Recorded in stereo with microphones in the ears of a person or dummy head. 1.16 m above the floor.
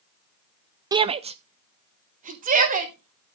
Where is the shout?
25° right (ahead or behind), 0.6 m; by 3.4 s 45° right (ahead or behind), 3.5 m.